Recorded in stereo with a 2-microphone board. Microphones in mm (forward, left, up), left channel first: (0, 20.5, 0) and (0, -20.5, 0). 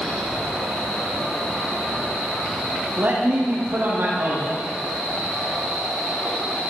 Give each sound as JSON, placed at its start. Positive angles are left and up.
{"t": 3.0, "sound": "a man speaking", "side_deg": -60, "distance_m": 7.0}